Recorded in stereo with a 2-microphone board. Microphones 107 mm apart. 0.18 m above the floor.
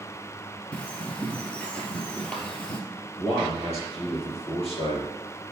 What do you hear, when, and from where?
0.7 s a bird: 10° left (ahead or behind), 1.4 m
3.2 s a man speaking: 65° left (ahead or behind), 3.5 m